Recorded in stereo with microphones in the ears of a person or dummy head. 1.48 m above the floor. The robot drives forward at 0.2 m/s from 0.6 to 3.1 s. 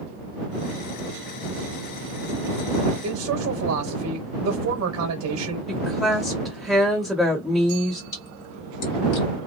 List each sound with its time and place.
3.0 s a man speaking: 85° right, 1.0 m
5.7 s a woman speaking: centre (ahead or behind), 1.2 m
8.1 s a splash: 55° left (ahead or behind), 1.6 m